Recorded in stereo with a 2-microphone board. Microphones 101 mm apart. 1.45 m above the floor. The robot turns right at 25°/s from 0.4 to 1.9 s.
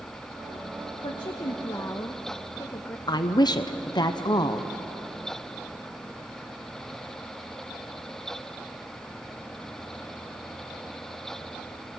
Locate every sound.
1.0 s a woman speaking: 50° left (ahead or behind), 1.1 m; by 3.0 s 25° left (ahead or behind), 1.1 m
3.1 s a woman speaking: 45° left (ahead or behind), 0.8 m